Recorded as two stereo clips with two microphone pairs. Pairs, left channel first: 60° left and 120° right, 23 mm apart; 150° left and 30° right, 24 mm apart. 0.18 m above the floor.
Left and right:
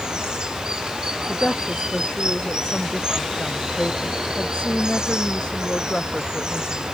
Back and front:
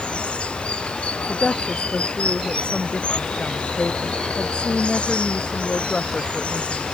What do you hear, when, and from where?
0.0 s running water: 175° right
1.3 s a woman speaking: 105° left